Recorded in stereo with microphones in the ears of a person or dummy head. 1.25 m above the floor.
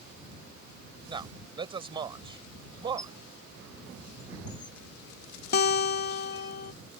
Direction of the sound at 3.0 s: 20° left (ahead or behind).